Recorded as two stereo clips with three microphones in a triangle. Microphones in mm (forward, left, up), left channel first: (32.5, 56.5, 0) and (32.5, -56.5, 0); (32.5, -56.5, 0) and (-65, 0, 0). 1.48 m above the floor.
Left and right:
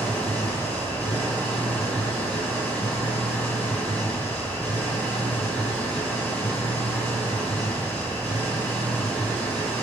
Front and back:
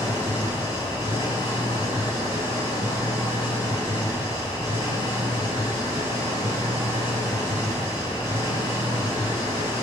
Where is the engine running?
15° left, 7.5 m.